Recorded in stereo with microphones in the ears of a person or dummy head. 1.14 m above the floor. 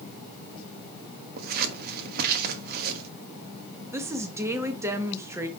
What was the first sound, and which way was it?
Scissors, 50° right (ahead or behind).